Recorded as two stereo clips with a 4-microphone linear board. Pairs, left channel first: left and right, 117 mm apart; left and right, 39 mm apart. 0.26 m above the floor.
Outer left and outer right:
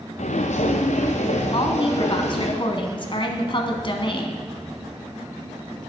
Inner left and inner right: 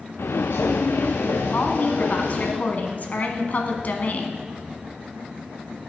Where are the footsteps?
80° left, 1.1 m; by 2.5 s 70° left (ahead or behind), 3.5 m.